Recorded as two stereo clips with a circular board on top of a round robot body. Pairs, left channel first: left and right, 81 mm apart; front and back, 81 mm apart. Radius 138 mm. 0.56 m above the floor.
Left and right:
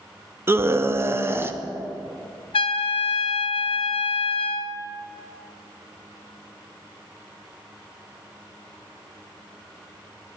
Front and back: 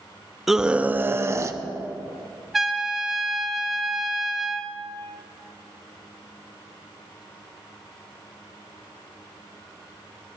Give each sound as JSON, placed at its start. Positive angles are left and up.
{"t": 0.5, "sound": "a scream", "azimuth_deg": -95, "distance_m": 0.8}
{"t": 2.5, "sound": "a trumpet", "azimuth_deg": 95, "distance_m": 0.5}